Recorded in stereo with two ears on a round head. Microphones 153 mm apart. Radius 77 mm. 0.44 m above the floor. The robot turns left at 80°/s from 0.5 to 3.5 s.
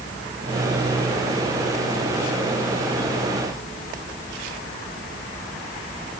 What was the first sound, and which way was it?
Only background noise.